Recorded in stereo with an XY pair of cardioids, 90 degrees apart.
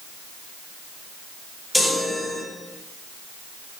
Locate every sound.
1.7 s a chime: 15° left, 5 m